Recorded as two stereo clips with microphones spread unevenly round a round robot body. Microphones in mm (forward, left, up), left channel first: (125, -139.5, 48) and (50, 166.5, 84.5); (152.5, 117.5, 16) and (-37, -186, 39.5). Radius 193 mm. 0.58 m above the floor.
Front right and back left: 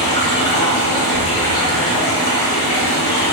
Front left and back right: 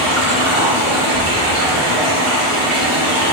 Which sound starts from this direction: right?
Running water, at 0.0 s.